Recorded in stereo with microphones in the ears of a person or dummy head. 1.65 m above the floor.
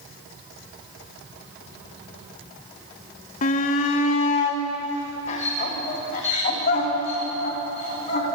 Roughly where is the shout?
Left.